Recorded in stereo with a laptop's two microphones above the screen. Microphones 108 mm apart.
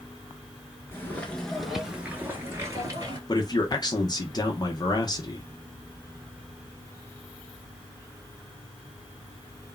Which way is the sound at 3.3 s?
35° left (ahead or behind).